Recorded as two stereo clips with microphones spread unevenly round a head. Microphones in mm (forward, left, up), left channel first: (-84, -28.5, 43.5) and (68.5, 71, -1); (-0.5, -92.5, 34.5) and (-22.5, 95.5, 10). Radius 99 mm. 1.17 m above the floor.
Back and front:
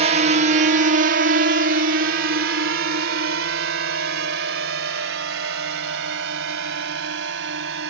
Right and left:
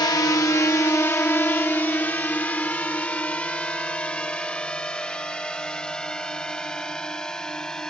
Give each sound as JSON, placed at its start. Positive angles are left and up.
{"t": 0.0, "sound": "a drone", "azimuth_deg": -10}